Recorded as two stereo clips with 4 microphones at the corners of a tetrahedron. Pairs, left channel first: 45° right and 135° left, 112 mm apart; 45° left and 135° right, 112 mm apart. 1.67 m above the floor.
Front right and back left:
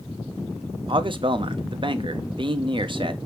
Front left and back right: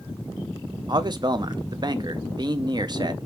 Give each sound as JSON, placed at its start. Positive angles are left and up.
{"t": 0.9, "sound": "a man speaking", "azimuth_deg": 175, "distance_m": 0.5}